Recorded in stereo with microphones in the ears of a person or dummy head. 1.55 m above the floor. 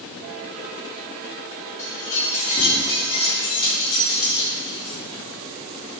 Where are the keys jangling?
45° left (ahead or behind), 2 m; by 5.0 s 20° left (ahead or behind), 3.5 m.